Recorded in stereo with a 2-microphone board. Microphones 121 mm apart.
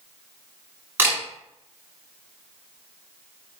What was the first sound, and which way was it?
A camera shutter, 15° right (ahead or behind).